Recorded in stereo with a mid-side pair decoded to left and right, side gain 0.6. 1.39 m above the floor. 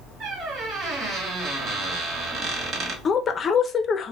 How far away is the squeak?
About 1.1 m.